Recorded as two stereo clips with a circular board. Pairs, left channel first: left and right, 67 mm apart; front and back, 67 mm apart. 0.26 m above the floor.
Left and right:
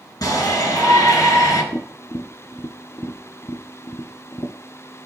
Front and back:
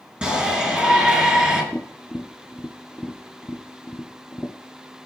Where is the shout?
105° left, 3 m.